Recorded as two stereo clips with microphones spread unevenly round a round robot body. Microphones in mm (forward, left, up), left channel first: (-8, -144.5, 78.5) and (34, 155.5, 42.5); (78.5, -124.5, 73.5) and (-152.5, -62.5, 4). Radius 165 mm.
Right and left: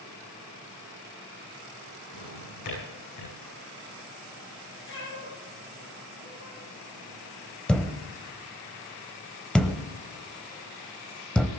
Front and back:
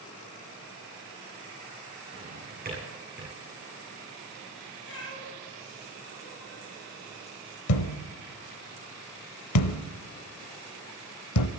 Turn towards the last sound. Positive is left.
turn(degrees=-10)